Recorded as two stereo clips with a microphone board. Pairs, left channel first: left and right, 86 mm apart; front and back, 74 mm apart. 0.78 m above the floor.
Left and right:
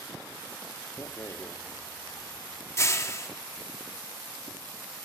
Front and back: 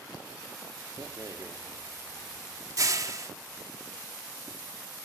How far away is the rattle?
About 1.4 m.